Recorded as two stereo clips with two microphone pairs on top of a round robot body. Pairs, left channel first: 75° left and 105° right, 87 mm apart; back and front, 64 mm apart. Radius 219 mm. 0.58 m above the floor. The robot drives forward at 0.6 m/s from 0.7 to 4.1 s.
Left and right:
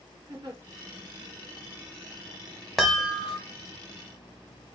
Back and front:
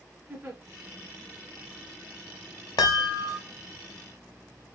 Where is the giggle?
65° right, 2.5 m.